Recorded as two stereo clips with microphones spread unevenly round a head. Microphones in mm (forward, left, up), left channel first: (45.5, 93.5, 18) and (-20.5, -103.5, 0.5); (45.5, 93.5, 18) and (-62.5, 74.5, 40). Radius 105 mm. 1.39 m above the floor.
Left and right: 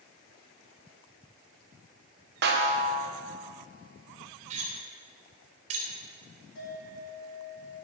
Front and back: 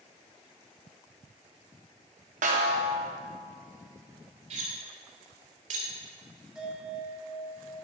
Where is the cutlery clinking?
165° right, 3 m.